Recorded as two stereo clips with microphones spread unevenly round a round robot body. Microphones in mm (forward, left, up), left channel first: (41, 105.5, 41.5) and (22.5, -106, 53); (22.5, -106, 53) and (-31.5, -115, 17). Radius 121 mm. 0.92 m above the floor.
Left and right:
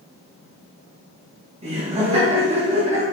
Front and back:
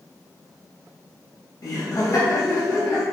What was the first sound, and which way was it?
Laughter, 35° right.